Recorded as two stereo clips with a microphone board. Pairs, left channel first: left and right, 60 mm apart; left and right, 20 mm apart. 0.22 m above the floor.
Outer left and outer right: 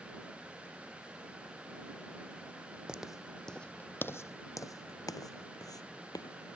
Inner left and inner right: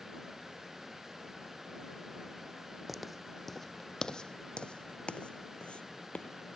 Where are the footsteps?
15° right (ahead or behind); by 6.6 s 80° left.